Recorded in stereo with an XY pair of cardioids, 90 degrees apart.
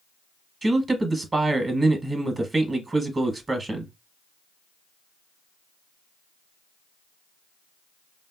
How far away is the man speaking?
About 0.8 m.